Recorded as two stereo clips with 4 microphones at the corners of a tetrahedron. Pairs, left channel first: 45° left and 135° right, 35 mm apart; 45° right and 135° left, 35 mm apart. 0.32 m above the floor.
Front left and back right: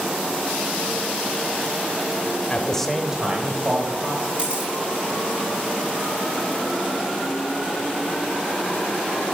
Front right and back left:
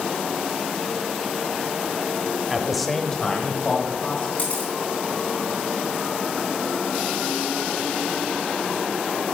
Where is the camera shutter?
85° right, 3.5 m.